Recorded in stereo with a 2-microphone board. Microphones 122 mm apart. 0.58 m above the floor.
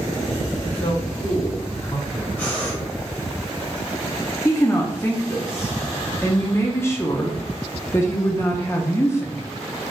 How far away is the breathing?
About 2.0 m.